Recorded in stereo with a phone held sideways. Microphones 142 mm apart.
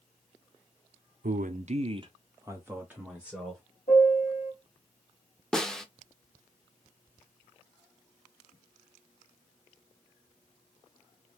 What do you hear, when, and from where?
1.2 s a man speaking: 85° right, 0.6 m; by 3.6 s 5° right (ahead or behind), 1.5 m
3.9 s a piano: 70° left (ahead or behind), 1.7 m
5.5 s a snare drum: 5° left (ahead or behind), 0.5 m